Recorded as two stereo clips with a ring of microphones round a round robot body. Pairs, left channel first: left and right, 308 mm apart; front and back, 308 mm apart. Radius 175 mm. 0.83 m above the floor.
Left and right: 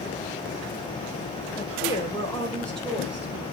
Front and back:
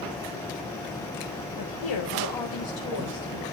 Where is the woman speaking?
20° left, 4 m; by 3.4 s 10° right, 4 m.